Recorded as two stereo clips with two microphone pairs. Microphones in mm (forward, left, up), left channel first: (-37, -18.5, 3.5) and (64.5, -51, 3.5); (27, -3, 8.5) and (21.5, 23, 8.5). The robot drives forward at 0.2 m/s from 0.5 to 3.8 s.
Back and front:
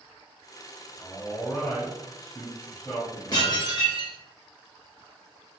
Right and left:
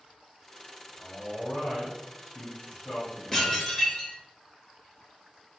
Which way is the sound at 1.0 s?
125° right.